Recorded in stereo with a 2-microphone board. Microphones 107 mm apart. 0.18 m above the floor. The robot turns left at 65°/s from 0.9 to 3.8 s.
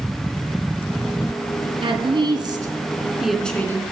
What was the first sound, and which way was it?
A woman speaking, 80° right.